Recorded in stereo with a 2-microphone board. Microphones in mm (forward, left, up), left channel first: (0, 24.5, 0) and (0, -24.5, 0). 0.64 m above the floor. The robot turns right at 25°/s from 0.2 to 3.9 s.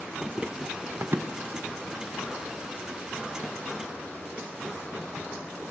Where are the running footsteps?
Centre (ahead or behind), 0.7 m; by 2.4 s 80° right, 3 m.